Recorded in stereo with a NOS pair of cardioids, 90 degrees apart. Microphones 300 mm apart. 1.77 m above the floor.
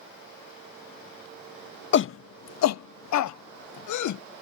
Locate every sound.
1.9 s a shout: 40° left; by 4.2 s 75° left